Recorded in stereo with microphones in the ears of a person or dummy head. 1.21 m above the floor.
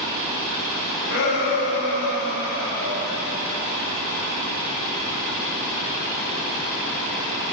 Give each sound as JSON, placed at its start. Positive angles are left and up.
{"t": 1.1, "sound": "a shout", "side_deg": 85, "distance_m": 9.5}